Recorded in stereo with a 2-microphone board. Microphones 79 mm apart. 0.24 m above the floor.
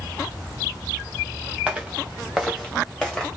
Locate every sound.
1.7 s footsteps: 5° right (ahead or behind), 1.9 m; by 3.3 s 5° left (ahead or behind), 2.5 m